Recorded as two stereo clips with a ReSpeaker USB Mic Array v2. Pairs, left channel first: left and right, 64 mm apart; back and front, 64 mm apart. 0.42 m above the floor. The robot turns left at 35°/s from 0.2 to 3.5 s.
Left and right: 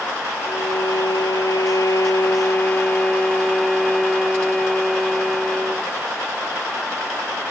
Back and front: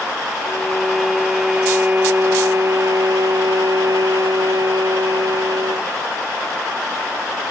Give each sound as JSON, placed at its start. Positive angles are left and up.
{"t": 0.5, "sound": "a violin", "azimuth_deg": 110}